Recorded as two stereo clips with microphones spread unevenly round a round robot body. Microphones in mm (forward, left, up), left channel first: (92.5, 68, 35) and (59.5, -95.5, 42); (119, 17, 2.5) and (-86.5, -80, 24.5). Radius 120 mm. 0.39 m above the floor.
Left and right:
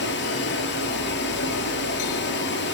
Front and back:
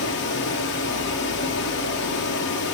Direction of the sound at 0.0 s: 75° left.